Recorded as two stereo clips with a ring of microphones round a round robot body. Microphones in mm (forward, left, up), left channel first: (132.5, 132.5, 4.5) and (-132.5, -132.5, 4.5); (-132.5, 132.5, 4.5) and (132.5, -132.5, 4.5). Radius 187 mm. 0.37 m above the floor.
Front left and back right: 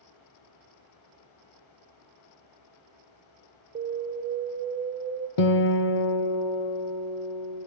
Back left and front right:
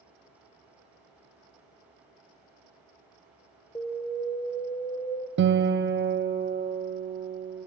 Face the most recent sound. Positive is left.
turn(degrees=15)